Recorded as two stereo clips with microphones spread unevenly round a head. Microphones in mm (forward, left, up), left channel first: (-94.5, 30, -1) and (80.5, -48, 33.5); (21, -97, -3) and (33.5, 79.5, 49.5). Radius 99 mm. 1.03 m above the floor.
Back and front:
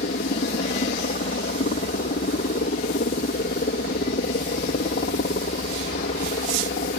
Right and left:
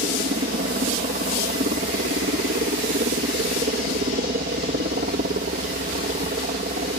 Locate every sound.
0.0 s a helicopter: 130° left